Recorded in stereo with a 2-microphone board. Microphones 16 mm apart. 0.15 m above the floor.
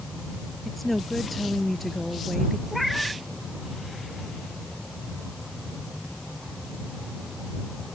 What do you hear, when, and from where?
0.7 s a woman speaking: 5° left (ahead or behind)
2.7 s a cat meowing: centre (ahead or behind)